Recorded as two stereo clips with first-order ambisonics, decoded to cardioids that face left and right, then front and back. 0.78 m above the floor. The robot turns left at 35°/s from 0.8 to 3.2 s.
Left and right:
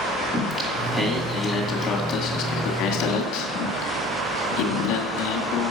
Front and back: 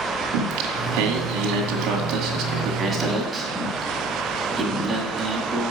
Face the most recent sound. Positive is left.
turn(degrees=100)